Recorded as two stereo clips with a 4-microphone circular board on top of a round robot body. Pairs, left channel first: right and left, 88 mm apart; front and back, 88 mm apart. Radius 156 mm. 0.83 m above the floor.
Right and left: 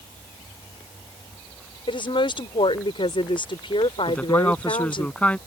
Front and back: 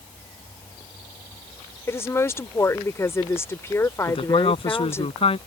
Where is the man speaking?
15° right.